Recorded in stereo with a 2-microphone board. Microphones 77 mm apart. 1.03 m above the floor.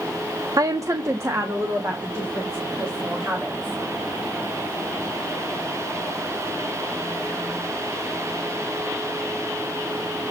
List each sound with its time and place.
0.6 s a woman speaking: 45° right (ahead or behind), 0.5 m; by 3.8 s 30° right (ahead or behind), 4 m